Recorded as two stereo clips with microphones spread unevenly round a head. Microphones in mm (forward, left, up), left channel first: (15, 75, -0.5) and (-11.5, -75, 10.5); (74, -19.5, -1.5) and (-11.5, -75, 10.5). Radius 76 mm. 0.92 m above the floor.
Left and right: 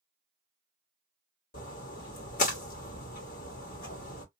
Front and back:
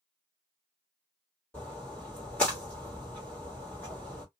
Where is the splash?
115° left, 1.4 m.